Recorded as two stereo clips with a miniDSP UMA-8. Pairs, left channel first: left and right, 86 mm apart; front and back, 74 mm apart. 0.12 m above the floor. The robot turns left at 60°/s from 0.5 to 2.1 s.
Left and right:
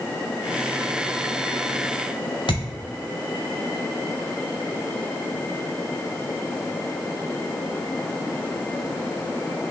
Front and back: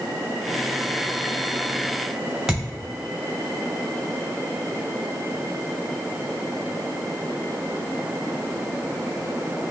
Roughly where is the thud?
Left.